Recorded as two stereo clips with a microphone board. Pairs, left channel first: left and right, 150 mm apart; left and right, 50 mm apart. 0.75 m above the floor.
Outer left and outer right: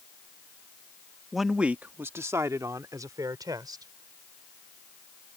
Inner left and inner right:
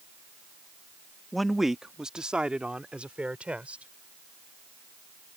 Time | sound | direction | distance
1.3 | a man speaking | centre (ahead or behind) | ?